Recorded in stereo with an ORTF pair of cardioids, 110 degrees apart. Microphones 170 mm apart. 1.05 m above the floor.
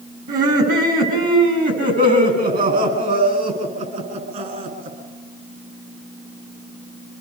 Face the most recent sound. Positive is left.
turn(degrees=-50)